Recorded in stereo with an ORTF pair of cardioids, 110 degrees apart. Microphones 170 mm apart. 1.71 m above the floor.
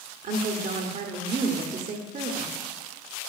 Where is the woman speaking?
45° right, 0.9 m.